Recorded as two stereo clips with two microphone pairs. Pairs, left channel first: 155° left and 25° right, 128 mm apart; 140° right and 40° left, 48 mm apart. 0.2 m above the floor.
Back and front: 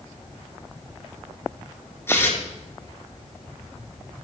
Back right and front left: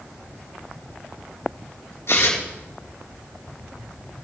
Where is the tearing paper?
135° right, 3.5 m.